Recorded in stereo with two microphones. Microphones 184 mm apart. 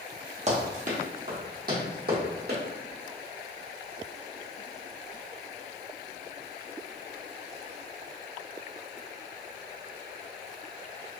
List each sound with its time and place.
0.5 s running footsteps: 40° right (ahead or behind), 1.3 m; by 2.6 s 65° right (ahead or behind), 2 m